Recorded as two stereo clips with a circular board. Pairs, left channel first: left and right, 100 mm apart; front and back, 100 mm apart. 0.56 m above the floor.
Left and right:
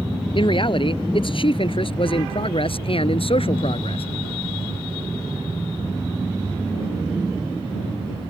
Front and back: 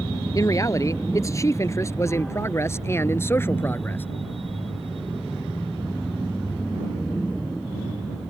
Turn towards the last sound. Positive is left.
turn(degrees=70)